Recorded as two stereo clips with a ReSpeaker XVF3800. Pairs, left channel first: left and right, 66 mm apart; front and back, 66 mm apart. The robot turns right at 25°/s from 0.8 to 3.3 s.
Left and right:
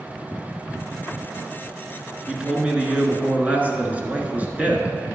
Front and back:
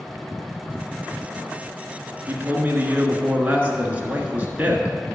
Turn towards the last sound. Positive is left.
turn(degrees=-135)